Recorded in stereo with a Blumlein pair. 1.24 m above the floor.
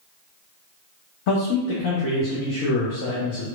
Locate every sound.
1.3 s a man speaking: 45° left, 0.6 m